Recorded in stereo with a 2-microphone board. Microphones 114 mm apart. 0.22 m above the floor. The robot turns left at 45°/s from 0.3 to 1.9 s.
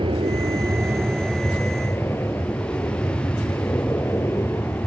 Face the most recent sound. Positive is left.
turn(degrees=20)  # may be behind; listen again after turning